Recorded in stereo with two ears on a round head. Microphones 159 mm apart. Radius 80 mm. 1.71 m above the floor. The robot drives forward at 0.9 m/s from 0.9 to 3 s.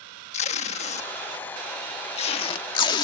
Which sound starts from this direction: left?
Tape being pulled, at 0.3 s.